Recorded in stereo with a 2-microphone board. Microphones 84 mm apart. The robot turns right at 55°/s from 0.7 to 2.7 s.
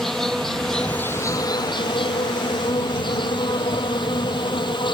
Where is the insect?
5° left; by 5.0 s 115° left.